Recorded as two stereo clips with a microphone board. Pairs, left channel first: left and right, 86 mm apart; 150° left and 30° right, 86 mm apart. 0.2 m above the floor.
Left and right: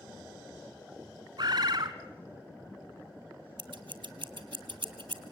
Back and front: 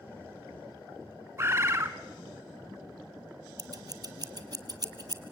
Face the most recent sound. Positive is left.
turn(degrees=-70)